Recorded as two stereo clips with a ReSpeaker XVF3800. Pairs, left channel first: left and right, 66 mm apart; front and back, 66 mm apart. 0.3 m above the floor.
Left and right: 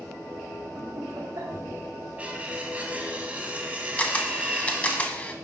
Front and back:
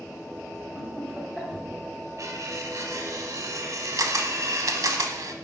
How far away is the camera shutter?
About 0.7 m.